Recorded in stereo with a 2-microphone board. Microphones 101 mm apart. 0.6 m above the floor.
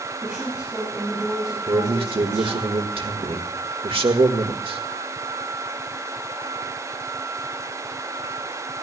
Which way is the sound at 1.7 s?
65° right (ahead or behind).